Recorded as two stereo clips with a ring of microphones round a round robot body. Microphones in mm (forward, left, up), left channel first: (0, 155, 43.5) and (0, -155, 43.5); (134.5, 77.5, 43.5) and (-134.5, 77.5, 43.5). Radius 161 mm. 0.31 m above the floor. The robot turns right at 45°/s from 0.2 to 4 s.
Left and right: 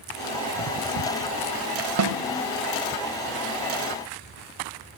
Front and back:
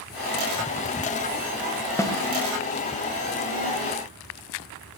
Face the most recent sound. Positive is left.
turn(degrees=10)